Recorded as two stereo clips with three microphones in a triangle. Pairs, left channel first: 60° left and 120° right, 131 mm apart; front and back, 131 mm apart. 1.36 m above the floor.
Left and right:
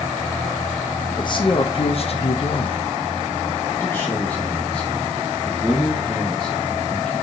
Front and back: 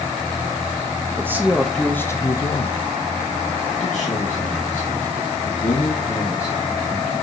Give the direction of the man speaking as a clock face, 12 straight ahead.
8 o'clock.